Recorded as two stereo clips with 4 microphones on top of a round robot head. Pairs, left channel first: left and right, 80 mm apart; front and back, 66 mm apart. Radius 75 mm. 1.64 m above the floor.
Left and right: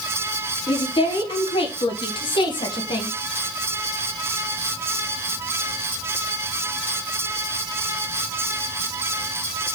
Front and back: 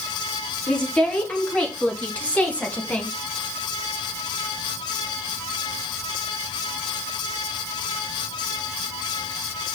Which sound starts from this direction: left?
A woman speaking, at 0.7 s.